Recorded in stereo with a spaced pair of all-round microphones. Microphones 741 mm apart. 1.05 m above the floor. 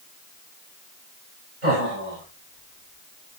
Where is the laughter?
75° right (ahead or behind), 5.5 m; by 3.4 s 60° right (ahead or behind), 4.5 m.